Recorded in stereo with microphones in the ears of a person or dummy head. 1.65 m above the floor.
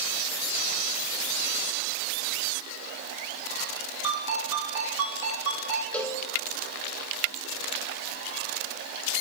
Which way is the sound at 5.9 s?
5° left (ahead or behind).